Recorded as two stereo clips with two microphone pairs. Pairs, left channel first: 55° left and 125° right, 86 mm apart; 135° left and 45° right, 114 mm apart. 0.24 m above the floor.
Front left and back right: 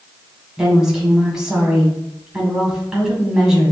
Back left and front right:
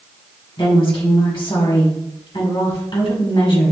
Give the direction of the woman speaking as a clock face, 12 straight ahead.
7 o'clock.